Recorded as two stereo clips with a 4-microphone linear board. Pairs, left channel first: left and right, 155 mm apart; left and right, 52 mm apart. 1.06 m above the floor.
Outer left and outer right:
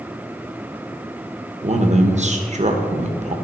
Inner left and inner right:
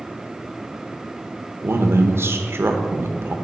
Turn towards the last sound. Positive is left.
turn(degrees=-50)  # may be behind; listen again after turning